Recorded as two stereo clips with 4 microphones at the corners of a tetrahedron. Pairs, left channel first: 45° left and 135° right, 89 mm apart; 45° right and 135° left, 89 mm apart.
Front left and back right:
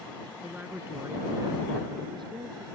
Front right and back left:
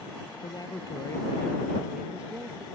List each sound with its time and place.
0.4 s a woman speaking: 60° right; by 2.6 s 160° right